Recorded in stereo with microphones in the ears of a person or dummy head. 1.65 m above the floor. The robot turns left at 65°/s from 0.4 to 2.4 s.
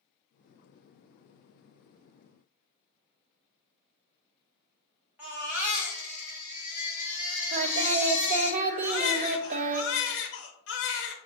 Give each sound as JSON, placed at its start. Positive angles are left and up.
{"t": 5.2, "sound": "a baby crying", "side_deg": -10, "distance_m": 1.7}
{"t": 7.5, "sound": "singing", "side_deg": -35, "distance_m": 0.5}
{"t": 8.8, "sound": "a baby crying", "side_deg": 60, "distance_m": 0.9}